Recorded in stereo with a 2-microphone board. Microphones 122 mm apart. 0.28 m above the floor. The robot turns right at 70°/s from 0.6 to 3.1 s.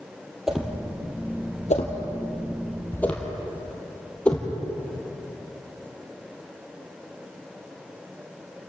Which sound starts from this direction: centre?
A whoosh, at 0.5 s.